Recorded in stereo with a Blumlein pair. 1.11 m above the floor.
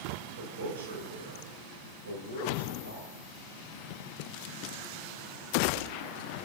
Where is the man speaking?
65° right, 6.5 m; by 3.1 s 80° right, 9 m.